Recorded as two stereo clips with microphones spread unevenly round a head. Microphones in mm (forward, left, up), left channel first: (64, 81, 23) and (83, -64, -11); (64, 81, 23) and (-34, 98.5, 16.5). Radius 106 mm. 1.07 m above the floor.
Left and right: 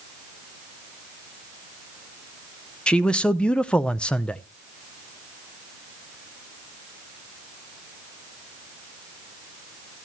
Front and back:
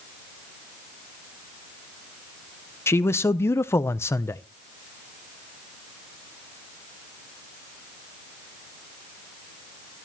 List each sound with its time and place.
2.9 s a man speaking: 10° right, 0.5 m